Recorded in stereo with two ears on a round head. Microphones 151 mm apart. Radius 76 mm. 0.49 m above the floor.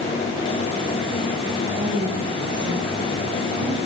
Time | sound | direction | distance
1.8 | a woman speaking | 25° right (ahead or behind) | 7 m